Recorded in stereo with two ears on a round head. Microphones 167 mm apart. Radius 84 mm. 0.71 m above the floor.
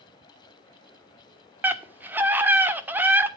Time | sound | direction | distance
1.6 | a scream | 10° right (ahead or behind) | 1.6 m